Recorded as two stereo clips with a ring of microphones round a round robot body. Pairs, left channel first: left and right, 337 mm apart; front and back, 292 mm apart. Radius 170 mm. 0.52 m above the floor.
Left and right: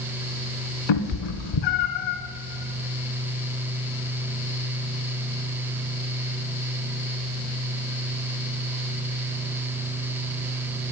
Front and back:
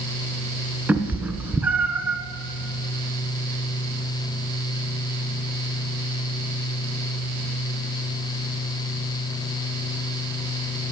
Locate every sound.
0.9 s a cat meowing: 95° left, 1.1 m